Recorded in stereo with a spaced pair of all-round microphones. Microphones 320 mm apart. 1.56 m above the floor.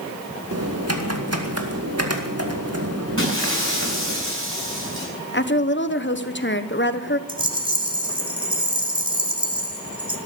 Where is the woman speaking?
35° left (ahead or behind), 1.1 m.